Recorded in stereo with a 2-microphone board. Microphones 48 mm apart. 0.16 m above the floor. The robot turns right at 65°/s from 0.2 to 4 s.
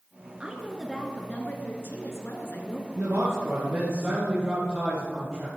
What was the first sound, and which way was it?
A woman speaking, 25° right.